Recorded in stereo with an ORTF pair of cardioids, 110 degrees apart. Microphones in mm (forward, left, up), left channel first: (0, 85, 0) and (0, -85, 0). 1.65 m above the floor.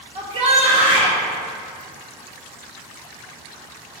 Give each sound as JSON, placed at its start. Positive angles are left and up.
{"t": 0.1, "sound": "a shout", "azimuth_deg": -40, "distance_m": 2.5}